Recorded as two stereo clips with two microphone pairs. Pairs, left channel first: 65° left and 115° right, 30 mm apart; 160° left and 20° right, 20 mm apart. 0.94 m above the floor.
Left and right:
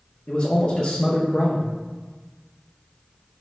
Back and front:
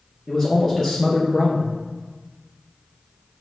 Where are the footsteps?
No footsteps in this recording.